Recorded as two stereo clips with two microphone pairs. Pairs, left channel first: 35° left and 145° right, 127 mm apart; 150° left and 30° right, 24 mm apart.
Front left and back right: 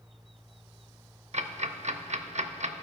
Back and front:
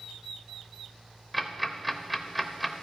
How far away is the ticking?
About 0.5 m.